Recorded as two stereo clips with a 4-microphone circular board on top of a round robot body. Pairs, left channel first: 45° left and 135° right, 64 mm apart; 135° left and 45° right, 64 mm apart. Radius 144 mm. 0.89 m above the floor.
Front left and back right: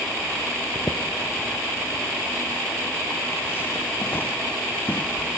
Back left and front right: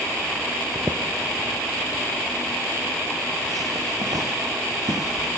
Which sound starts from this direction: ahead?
Footsteps, at 0.8 s.